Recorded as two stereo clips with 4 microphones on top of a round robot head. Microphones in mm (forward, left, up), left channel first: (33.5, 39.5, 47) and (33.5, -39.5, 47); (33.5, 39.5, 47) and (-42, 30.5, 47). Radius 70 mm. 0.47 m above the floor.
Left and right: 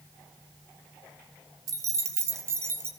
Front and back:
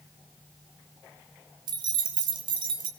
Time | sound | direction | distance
1.7 | keys jangling | 140° right | 2 m